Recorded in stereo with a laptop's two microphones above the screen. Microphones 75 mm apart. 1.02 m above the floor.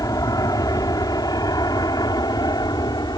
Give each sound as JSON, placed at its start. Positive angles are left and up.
{"t": 0.0, "sound": "an aircraft", "side_deg": 55}